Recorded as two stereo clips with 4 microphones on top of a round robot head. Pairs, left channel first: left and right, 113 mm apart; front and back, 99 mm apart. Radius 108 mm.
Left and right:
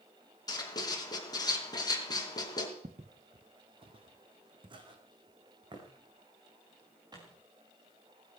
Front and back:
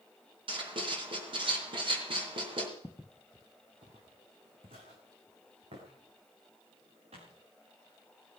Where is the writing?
145° left, 4 m.